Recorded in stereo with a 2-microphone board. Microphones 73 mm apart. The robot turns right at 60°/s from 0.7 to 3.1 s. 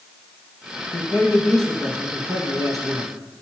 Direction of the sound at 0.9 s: 135° left.